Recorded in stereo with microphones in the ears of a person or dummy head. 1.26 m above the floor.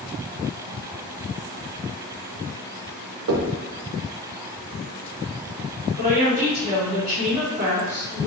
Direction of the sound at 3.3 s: 70° right (ahead or behind).